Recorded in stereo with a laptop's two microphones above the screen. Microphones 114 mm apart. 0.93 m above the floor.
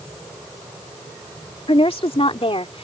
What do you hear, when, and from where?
1.7 s a woman speaking: 60° left (ahead or behind)